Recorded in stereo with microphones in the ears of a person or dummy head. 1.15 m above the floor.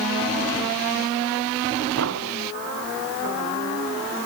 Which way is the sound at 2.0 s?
80° right.